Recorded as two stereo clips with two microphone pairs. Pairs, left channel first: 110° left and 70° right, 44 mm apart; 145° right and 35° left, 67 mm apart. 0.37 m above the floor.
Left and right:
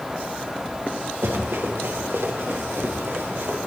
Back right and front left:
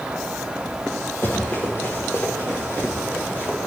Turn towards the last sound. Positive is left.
turn(degrees=-90)